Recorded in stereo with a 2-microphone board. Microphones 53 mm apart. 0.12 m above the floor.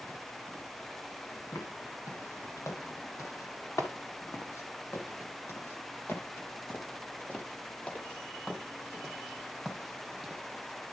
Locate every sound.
1.5 s footsteps: 80° left, 4.5 m; by 10.4 s 5° left (ahead or behind), 5 m